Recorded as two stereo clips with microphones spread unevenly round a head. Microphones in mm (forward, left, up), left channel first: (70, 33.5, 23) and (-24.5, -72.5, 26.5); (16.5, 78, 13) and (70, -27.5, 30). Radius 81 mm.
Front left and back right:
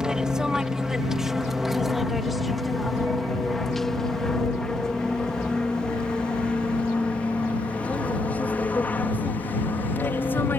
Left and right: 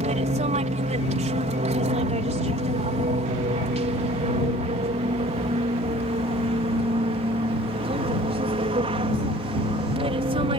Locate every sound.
0.0 s an aircraft: 45° right; by 10.6 s 25° right